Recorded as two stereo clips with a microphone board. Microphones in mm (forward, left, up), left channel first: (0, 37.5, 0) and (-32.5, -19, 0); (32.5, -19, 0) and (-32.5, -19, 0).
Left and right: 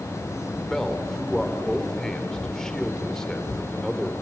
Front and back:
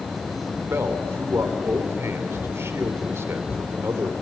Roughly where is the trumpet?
I don't hear a trumpet.